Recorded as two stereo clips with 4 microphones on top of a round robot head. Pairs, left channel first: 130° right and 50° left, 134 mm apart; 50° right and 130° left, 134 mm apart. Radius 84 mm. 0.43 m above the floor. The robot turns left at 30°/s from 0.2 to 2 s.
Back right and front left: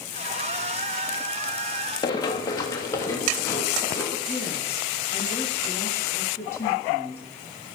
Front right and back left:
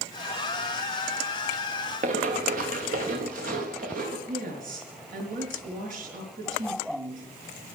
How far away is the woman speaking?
About 5.5 m.